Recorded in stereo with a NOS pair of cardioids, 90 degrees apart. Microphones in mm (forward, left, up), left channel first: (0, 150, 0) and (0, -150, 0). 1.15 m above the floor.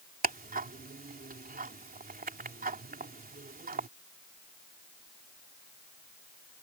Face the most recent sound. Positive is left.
turn(degrees=-30)